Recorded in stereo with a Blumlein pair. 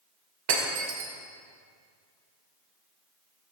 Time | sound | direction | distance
0.5 | breaking glass | 50° right | 2.5 m